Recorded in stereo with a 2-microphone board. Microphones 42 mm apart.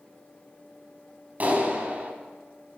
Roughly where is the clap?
Right.